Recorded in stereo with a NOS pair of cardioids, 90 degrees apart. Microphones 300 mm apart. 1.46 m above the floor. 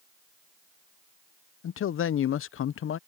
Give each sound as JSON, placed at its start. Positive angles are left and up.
{"t": 1.6, "sound": "a man speaking", "azimuth_deg": 45}